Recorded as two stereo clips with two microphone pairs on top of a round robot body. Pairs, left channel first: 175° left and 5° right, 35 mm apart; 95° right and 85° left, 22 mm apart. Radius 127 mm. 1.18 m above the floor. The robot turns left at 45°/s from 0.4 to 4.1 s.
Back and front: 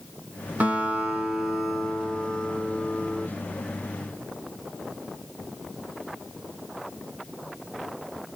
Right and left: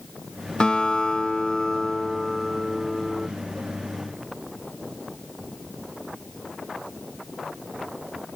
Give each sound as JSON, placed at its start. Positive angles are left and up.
{"t": 0.6, "sound": "a guitar", "azimuth_deg": -60, "distance_m": 1.1}